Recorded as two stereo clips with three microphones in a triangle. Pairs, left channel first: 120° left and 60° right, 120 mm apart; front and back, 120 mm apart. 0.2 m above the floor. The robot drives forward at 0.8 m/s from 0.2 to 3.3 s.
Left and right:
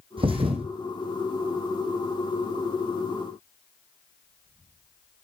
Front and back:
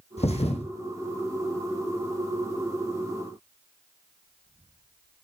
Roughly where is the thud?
Ahead.